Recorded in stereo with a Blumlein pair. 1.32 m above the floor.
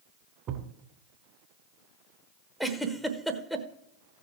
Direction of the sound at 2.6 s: Straight ahead.